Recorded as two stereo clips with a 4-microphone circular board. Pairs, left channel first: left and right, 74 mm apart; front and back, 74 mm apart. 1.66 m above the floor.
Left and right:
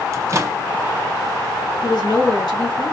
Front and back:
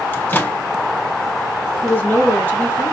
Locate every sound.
0.1 s a microwave: 55° right, 0.8 m
1.8 s a woman speaking: 65° left, 3 m